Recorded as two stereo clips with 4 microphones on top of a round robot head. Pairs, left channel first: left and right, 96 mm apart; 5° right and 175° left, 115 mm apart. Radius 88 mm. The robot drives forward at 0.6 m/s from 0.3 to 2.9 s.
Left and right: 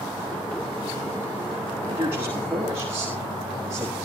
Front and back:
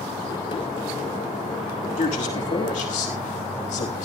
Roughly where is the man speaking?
Ahead.